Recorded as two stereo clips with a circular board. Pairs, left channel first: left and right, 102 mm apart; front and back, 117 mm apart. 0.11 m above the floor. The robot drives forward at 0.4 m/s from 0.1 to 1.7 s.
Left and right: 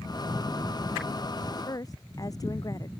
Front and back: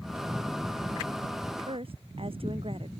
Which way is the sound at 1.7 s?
140° left.